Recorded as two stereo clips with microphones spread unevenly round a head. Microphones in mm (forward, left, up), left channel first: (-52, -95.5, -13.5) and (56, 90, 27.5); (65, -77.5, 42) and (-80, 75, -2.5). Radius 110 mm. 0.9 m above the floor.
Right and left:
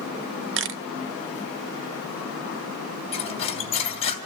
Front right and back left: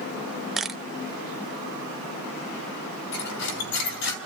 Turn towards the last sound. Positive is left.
turn(degrees=-55)